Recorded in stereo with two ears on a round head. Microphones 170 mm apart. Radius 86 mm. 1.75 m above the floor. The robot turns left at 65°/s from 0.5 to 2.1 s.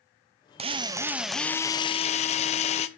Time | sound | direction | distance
0.6 | a drill | 135° right | 0.7 m